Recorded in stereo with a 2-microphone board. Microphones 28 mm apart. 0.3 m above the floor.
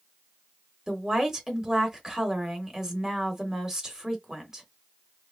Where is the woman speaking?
20° right (ahead or behind), 0.9 m.